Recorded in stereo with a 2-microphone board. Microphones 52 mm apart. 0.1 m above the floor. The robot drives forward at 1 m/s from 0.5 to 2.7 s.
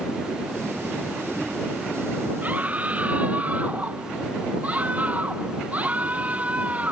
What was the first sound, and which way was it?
A scream, 30° right (ahead or behind).